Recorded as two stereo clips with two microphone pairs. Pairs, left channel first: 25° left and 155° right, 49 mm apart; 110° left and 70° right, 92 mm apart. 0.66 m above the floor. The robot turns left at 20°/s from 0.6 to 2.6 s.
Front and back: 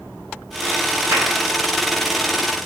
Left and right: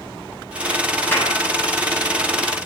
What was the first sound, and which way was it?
A clap, 175° left.